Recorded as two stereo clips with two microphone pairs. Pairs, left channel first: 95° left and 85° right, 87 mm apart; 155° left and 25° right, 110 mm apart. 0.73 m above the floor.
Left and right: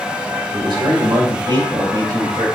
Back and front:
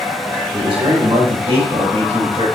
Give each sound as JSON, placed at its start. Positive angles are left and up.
{"t": 0.5, "sound": "a man speaking", "azimuth_deg": -60, "distance_m": 3.0}